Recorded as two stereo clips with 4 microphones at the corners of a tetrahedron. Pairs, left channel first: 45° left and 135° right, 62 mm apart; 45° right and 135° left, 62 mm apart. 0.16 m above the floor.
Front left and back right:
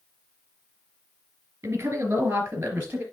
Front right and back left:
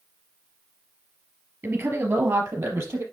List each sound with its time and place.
1.6 s a woman speaking: 175° left, 3 m; by 3.0 s 165° left, 4 m